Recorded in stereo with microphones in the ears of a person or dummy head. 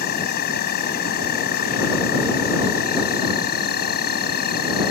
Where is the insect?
55° left (ahead or behind).